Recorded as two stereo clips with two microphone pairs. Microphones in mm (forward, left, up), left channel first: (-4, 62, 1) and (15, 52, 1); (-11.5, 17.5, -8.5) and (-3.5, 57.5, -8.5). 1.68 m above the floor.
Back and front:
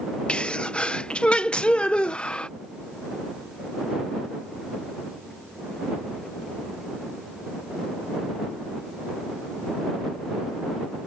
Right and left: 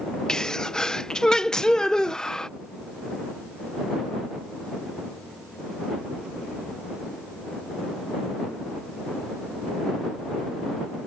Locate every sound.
0.3 s a sneeze: 175° right